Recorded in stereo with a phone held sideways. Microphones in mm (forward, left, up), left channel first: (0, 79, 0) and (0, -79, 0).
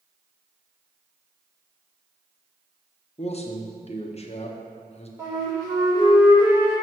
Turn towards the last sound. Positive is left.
turn(degrees=-20)  # may be behind; listen again after turning